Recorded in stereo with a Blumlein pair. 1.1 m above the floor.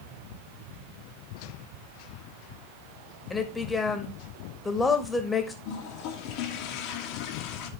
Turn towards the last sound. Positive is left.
turn(degrees=40)